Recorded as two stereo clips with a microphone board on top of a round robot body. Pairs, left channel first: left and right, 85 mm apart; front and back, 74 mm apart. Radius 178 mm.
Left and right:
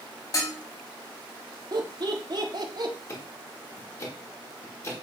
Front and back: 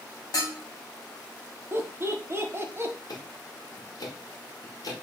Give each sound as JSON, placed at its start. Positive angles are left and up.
{"t": 0.3, "sound": "dishes clattering", "azimuth_deg": 40, "distance_m": 3.0}
{"t": 1.7, "sound": "laughter", "azimuth_deg": -125, "distance_m": 1.5}
{"t": 3.1, "sound": "ticking", "azimuth_deg": 35, "distance_m": 2.0}